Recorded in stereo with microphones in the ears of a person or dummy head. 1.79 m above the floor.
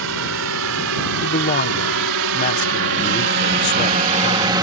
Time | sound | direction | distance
0.0 | a drone | 85° right | ?
1.2 | a man speaking | 45° left (ahead or behind) | ?